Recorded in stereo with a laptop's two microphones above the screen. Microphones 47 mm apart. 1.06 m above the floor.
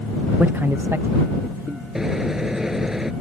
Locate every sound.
0.4 s a man speaking: 30° right (ahead or behind); by 1.9 s 75° right (ahead or behind)
1.9 s a microwave: 10° right (ahead or behind)